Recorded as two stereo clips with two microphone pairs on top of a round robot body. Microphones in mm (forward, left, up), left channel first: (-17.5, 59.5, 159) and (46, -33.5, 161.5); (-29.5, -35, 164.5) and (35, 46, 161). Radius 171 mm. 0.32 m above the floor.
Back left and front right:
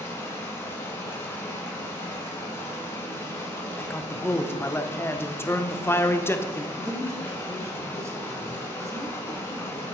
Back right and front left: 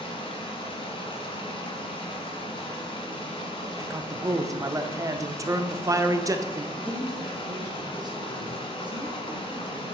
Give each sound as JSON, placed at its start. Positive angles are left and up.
{"t": 0.0, "sound": "running water", "azimuth_deg": -165, "distance_m": 1.6}
{"t": 3.8, "sound": "a man speaking", "azimuth_deg": 75, "distance_m": 1.0}
{"t": 6.8, "sound": "a woman speaking", "azimuth_deg": 10, "distance_m": 2.0}